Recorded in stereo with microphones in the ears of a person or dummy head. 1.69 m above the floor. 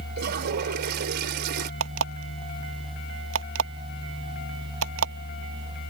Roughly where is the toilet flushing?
Right.